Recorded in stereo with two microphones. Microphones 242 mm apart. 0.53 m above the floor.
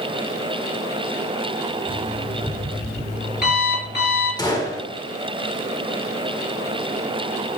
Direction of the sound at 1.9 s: 40° left (ahead or behind).